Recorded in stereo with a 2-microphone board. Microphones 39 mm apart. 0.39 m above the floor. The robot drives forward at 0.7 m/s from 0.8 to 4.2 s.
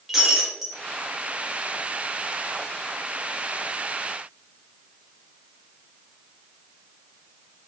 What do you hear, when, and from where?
0.1 s breaking glass: 5° right (ahead or behind), 3 m